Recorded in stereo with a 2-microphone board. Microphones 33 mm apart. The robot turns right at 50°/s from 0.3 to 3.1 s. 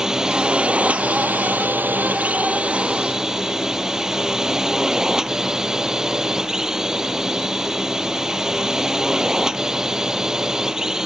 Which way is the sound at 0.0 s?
160° right.